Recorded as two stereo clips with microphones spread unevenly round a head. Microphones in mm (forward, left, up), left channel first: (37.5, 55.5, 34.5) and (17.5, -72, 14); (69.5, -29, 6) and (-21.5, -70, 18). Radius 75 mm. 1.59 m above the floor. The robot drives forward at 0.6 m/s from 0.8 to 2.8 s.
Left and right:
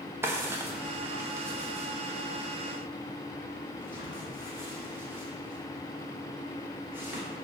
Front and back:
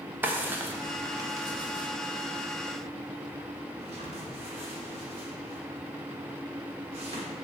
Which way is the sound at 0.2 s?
175° right.